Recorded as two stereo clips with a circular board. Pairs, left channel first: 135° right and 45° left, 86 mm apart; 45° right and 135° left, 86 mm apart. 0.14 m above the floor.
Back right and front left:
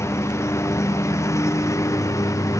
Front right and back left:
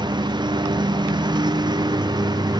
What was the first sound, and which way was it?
A lawn mower, 170° left.